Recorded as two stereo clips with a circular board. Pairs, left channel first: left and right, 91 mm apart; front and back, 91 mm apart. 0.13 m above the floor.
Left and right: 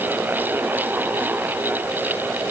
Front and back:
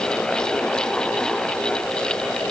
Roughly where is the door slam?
I don't hear a door slam.